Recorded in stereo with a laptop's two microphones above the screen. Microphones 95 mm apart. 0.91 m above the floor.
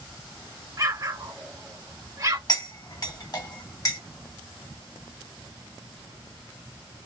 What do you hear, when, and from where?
0.8 s an explosion: 35° right (ahead or behind), 1.3 m
2.5 s cutlery clinking: 40° left (ahead or behind), 1.3 m